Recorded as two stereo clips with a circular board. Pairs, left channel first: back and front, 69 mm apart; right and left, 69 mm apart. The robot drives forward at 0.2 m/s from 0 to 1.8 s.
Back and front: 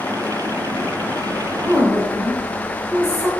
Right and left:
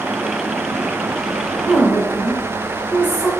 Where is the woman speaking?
135° right, 1.7 m.